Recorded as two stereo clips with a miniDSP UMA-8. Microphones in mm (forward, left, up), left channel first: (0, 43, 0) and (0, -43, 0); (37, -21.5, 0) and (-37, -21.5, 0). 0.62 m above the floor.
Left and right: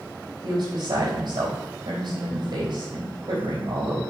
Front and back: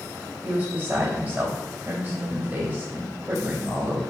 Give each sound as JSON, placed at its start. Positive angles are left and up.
{"t": 0.4, "sound": "a woman speaking", "azimuth_deg": -120, "distance_m": 3.0}